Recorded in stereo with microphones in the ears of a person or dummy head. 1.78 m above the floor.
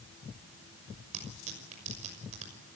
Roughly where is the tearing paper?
Right.